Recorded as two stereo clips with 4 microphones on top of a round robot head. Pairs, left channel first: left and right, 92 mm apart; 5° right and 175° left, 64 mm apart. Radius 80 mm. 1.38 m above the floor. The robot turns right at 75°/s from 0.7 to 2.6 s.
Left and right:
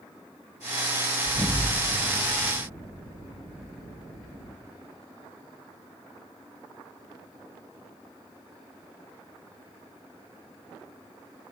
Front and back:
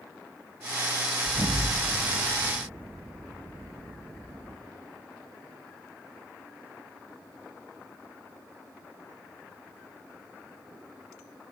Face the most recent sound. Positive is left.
turn(degrees=-120)